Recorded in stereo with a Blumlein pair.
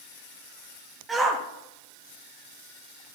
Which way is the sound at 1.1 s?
15° right.